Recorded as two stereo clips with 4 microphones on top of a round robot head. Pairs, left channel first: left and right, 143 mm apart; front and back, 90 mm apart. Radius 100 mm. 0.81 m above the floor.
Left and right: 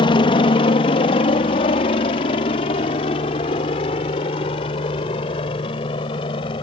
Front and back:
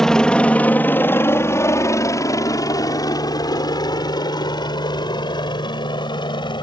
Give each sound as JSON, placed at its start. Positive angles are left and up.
{"t": 0.0, "sound": "a helicopter", "azimuth_deg": 80}